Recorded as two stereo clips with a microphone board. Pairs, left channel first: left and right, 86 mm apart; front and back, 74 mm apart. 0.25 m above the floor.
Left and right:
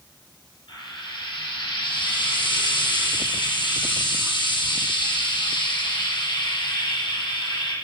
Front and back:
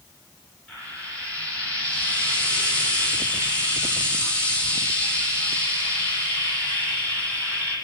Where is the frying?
75° left, 8.5 m.